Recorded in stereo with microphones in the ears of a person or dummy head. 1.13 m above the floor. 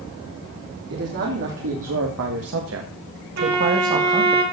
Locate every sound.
0.9 s a man speaking: 55° right (ahead or behind), 3 m; by 4.4 s 20° right (ahead or behind), 2 m
3.4 s a violin: 90° right, 5 m